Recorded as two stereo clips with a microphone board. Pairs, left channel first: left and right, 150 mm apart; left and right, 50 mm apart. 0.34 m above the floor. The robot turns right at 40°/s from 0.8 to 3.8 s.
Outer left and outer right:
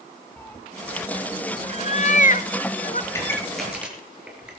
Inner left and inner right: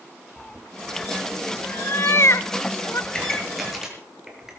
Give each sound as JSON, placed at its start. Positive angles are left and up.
{"t": 0.4, "sound": "a cat meowing", "side_deg": 15, "distance_m": 0.7}
{"t": 3.1, "sound": "a pop", "side_deg": 20, "distance_m": 5.5}